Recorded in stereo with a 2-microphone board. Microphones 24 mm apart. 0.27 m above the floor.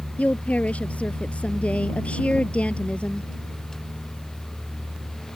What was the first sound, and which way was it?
A woman speaking, 65° left (ahead or behind).